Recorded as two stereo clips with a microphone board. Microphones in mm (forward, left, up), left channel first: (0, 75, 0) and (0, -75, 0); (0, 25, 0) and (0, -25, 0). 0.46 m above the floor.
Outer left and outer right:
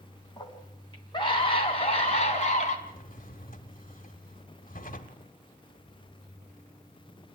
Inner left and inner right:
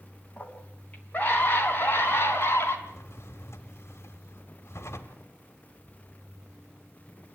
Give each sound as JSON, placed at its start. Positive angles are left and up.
{"t": 0.4, "sound": "a scream", "side_deg": 25, "distance_m": 4.0}
{"t": 2.9, "sound": "a drawer", "side_deg": 70, "distance_m": 1.4}